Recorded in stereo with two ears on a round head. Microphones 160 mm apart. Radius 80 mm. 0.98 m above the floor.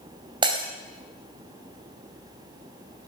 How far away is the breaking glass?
About 2.5 m.